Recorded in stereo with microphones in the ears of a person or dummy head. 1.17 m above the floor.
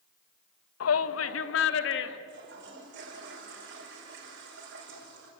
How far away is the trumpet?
No trumpet in this recording.